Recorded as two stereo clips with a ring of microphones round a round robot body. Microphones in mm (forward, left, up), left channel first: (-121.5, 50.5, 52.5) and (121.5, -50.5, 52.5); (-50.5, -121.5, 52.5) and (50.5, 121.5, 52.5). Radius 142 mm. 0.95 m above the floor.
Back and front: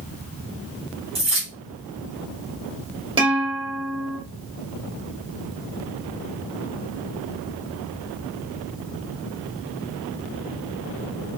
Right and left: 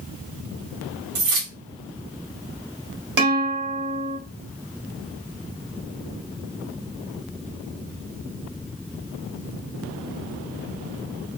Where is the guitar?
50° left, 1.3 m.